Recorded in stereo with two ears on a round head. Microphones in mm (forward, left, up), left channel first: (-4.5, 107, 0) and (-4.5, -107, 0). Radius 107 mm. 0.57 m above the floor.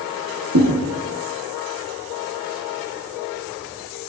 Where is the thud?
65° right (ahead or behind), 6.5 m.